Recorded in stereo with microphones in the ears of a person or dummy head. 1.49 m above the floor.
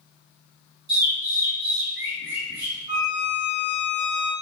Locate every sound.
0.9 s a bird: 50° right (ahead or behind), 2 m
2.9 s a violin: 30° right (ahead or behind), 2.5 m